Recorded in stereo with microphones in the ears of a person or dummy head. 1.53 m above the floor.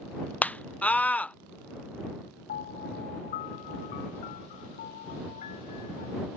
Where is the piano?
45° left (ahead or behind).